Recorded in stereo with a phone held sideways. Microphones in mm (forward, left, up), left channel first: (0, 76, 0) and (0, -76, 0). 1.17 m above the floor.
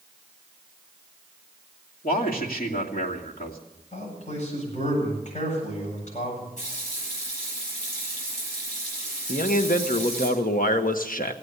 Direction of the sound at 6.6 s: 50° left (ahead or behind).